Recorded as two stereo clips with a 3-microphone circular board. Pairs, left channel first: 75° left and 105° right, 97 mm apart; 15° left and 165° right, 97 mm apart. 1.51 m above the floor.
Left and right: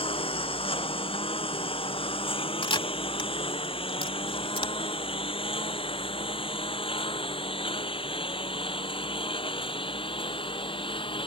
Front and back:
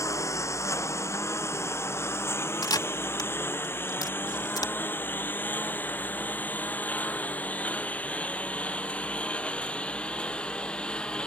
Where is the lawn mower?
70° left; by 11.3 s 95° left.